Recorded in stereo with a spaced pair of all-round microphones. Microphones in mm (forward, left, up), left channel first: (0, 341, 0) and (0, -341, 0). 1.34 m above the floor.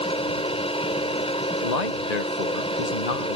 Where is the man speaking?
85° left.